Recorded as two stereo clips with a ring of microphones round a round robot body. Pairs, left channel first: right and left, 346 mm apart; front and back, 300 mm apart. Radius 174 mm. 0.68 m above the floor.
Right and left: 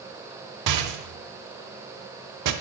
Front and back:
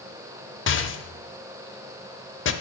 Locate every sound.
0.7 s a rattle: 50° left, 0.9 m